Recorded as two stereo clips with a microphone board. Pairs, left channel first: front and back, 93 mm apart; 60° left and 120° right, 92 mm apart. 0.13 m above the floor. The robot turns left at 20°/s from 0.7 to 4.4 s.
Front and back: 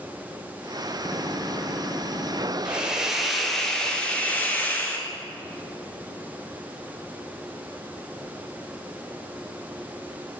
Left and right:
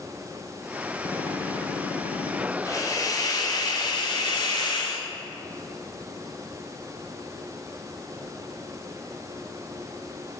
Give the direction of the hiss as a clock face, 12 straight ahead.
9 o'clock.